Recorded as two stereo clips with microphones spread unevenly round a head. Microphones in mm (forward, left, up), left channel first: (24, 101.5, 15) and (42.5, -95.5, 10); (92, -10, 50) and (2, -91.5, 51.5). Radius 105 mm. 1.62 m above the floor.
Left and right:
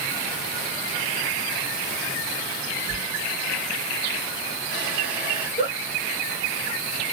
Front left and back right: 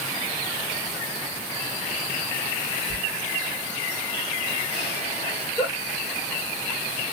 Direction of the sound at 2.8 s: 145° right.